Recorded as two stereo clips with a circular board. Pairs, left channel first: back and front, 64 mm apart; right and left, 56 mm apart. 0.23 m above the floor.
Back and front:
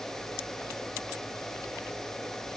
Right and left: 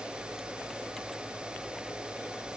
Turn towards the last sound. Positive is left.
No sound to turn to.